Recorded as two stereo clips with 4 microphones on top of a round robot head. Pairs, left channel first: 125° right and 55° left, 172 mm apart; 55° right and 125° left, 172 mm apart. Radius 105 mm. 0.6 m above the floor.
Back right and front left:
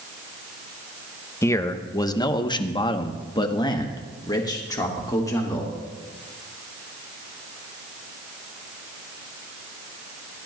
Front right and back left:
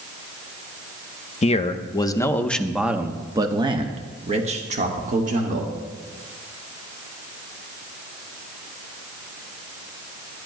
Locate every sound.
1.4 s a man speaking: 60° right, 1.0 m; by 5.7 s 165° left, 2 m